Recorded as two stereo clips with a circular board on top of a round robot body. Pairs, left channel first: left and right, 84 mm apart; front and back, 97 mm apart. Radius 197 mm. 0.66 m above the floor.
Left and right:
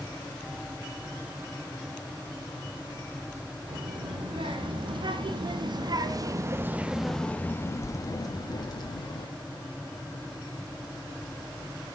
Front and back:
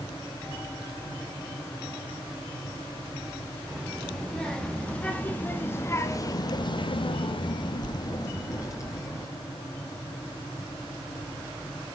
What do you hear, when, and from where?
3.7 s a child speaking: 85° right, 2.5 m; by 9.3 s 60° left, 1.8 m